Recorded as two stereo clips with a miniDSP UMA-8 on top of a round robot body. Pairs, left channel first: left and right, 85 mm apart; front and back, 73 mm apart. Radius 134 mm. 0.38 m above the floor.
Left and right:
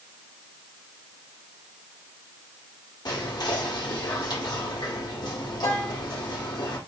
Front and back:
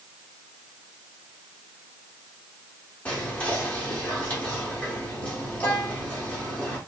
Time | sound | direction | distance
3.0 | whispering | 70° left | 1.3 m